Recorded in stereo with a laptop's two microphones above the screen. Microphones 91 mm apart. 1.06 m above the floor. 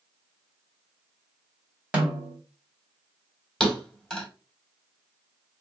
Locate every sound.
1.9 s a snare drum: 20° right (ahead or behind), 1.6 m
3.6 s a thud: 5° left (ahead or behind), 1.4 m